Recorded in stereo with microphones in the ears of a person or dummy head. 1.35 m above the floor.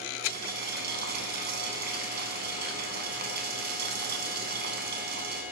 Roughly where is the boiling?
Right.